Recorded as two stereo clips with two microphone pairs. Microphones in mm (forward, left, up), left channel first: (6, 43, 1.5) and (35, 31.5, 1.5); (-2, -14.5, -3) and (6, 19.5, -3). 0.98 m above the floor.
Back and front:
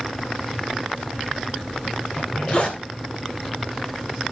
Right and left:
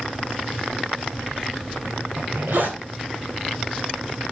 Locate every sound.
2.2 s a zipper: 105° left, 4 m